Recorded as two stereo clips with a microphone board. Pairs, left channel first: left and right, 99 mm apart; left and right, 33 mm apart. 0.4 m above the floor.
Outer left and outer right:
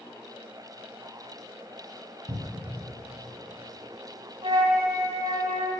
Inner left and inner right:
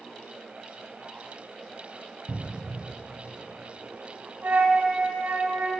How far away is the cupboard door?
About 0.6 m.